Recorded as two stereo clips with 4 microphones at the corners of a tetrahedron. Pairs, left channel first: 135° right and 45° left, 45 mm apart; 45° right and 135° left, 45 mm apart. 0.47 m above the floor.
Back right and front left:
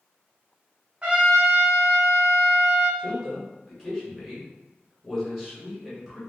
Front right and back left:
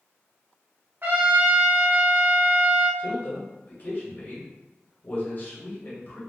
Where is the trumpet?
105° left, 0.9 m.